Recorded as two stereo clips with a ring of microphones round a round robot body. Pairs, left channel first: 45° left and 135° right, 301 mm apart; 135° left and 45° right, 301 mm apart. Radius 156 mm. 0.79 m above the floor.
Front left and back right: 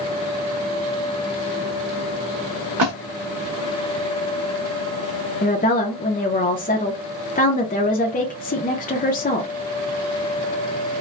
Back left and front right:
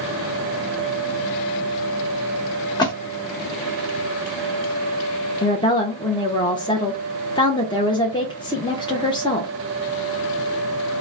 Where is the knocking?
No knocking in this recording.